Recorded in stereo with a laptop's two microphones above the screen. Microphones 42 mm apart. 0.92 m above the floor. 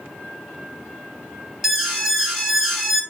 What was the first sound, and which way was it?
An alarm, centre (ahead or behind).